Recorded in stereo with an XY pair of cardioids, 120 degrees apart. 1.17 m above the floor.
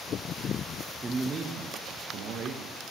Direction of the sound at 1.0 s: 25° right.